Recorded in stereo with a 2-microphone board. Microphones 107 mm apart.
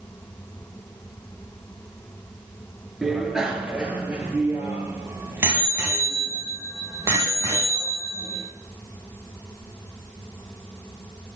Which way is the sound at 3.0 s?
5° right (ahead or behind).